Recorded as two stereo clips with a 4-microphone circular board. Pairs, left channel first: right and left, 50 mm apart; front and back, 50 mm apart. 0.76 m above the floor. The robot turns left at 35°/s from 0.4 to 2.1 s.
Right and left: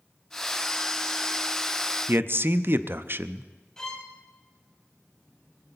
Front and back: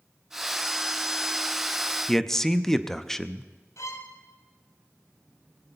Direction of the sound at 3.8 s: 10° right.